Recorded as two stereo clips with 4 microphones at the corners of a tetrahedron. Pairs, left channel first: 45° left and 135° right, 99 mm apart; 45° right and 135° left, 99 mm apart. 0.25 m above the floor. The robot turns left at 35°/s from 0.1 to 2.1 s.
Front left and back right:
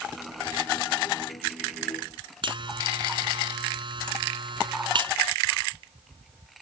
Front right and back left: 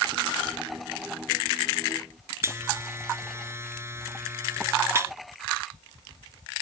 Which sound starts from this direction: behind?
A buzzer, at 2.4 s.